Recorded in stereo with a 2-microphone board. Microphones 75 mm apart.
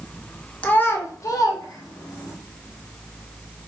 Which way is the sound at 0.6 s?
20° left (ahead or behind).